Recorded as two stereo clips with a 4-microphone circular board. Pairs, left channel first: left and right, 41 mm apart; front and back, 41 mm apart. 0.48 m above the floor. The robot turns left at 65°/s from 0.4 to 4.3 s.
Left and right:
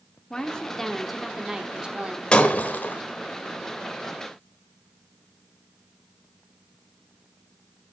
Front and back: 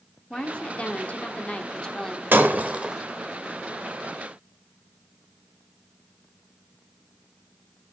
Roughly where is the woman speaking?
Ahead left.